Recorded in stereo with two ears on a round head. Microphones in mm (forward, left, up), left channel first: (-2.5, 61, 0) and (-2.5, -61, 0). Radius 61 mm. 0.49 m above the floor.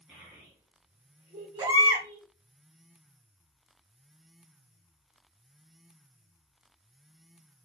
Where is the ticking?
I don't hear ticking.